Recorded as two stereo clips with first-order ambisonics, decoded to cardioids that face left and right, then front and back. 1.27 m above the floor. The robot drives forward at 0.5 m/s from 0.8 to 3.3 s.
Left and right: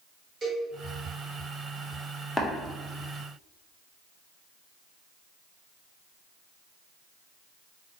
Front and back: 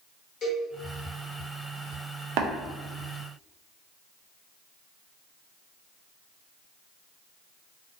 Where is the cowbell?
40° right, 1.3 m.